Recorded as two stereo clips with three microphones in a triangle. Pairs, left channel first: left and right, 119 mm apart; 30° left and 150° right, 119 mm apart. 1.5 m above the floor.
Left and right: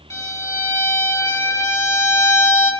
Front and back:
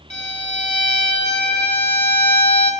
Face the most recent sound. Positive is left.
turn(degrees=30)